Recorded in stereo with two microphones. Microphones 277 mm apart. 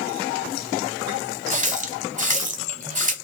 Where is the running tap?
25° right (ahead or behind), 0.9 m.